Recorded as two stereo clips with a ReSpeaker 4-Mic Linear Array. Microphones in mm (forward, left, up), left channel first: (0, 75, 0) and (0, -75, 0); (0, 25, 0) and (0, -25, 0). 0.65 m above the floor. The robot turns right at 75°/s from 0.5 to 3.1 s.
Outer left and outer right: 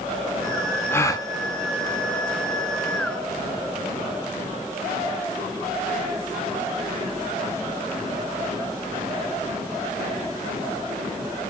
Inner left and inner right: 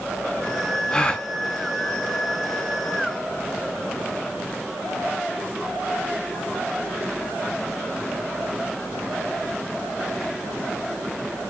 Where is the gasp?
15° left (ahead or behind), 0.5 m; by 1.3 s 25° left (ahead or behind), 0.5 m.